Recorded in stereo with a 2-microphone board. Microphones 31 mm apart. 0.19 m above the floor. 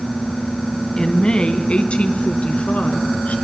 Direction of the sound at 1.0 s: 30° left (ahead or behind).